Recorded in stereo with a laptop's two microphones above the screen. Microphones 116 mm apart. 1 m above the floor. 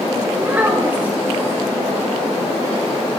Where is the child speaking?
15° right (ahead or behind), 0.9 m.